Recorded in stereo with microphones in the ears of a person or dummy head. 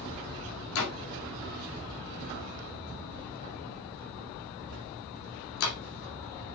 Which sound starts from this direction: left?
A door slam, at 0.8 s.